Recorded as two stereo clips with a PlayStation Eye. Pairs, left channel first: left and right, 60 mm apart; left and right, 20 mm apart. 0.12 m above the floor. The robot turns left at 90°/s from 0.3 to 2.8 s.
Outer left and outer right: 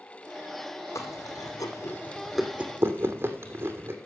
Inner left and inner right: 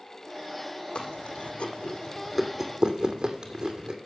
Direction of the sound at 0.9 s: 55° left (ahead or behind).